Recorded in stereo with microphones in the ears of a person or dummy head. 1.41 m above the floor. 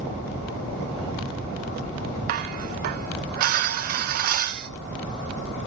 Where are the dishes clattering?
45° right (ahead or behind), 0.6 m.